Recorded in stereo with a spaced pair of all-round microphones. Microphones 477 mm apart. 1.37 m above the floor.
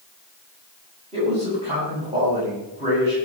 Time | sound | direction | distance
1.1 | a man speaking | 15° right (ahead or behind) | 10 m